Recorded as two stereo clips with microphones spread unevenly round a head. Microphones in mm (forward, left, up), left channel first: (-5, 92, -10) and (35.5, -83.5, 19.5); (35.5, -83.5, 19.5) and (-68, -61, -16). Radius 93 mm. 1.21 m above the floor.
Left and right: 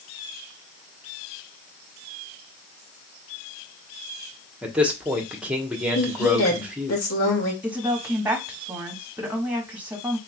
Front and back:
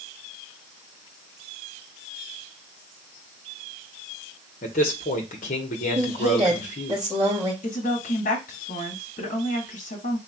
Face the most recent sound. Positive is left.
turn(degrees=5)